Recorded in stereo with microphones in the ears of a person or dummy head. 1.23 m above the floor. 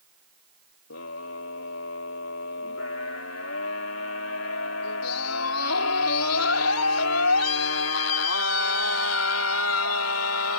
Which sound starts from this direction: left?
A scream, at 0.9 s.